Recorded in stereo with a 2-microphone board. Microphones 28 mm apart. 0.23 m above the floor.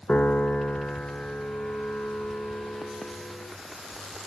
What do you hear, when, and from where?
0.1 s a piano: 75° left (ahead or behind), 0.8 m